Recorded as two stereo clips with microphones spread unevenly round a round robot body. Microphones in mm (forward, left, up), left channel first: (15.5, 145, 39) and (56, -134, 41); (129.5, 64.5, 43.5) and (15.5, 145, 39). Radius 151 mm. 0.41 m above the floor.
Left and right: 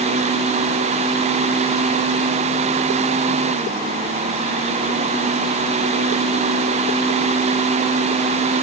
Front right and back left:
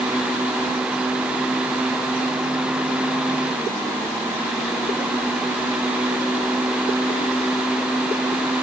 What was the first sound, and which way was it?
Only background noise.